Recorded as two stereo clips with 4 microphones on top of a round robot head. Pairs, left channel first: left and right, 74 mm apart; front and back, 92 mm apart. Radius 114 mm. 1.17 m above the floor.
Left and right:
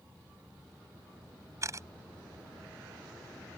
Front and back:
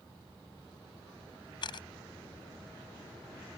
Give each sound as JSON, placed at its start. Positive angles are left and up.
{"t": 1.6, "sound": "a camera shutter", "azimuth_deg": -40}